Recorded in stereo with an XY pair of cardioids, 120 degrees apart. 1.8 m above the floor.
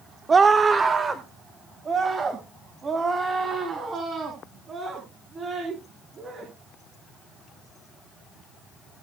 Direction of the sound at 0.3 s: 30° right.